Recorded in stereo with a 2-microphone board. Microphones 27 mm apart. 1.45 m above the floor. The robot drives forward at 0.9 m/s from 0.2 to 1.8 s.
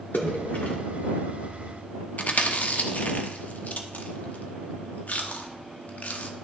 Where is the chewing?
60° left (ahead or behind), 0.8 m.